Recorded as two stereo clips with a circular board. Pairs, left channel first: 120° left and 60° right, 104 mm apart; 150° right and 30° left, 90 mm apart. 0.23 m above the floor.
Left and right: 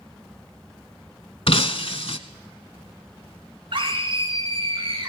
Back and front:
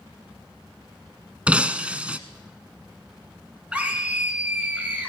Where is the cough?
No cough in this recording.